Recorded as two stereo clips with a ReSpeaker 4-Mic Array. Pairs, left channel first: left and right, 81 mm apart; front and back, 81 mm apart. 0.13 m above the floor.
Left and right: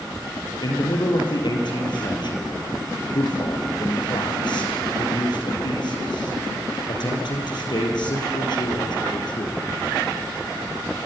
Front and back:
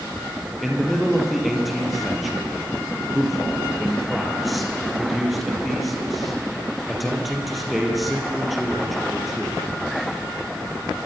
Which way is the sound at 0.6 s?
90° left.